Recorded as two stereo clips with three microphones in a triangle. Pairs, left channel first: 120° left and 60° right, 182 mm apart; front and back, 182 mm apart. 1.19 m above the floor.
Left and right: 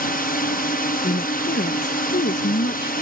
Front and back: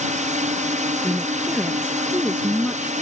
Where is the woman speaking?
100° left.